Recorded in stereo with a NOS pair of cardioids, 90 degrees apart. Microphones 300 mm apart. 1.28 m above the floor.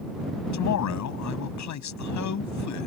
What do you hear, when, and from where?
0.5 s a man speaking: 70° left